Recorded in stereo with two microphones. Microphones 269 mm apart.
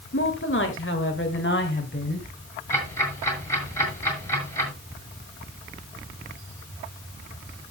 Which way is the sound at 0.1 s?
50° left (ahead or behind).